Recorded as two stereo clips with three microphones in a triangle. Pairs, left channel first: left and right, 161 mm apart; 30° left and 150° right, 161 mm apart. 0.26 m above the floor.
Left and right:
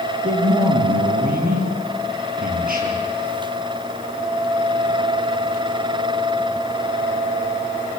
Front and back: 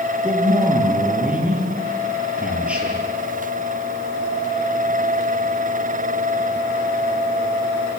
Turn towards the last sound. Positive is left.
turn(degrees=-65)